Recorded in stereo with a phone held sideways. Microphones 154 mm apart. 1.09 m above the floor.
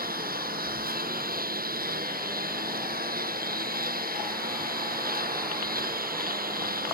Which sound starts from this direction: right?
A lawn mower, at 0.0 s.